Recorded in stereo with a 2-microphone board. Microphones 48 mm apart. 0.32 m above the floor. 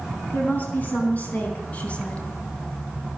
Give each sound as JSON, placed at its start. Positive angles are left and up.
{"t": 0.3, "sound": "a woman speaking", "side_deg": 40, "distance_m": 4.0}